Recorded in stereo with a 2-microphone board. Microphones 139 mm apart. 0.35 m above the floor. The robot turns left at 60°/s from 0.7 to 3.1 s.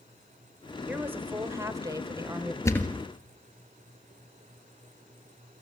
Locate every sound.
0.9 s a woman speaking: 10° right (ahead or behind), 1.0 m; by 2.5 s 15° right (ahead or behind), 1.0 m
2.6 s a thud: 20° left (ahead or behind), 1.5 m; by 3.0 s 5° right (ahead or behind), 1.5 m